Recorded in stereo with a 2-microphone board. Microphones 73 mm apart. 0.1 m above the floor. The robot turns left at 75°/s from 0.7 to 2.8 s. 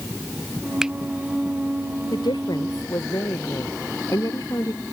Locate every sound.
0.8 s a finger snap: 5° right (ahead or behind); by 0.9 s 15° right (ahead or behind)
2.1 s a woman speaking: 100° left; by 4.8 s 50° left